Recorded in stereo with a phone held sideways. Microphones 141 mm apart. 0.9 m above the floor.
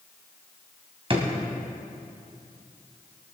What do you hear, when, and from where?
1.1 s a drawer: 40° right (ahead or behind), 2.0 m